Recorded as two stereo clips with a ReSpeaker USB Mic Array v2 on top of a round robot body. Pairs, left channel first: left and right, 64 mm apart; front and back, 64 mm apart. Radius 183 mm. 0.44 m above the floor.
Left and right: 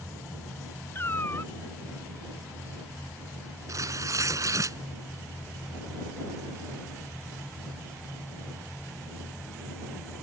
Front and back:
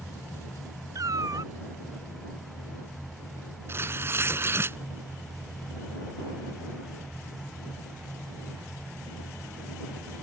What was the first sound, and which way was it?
A cat meowing, 145° left.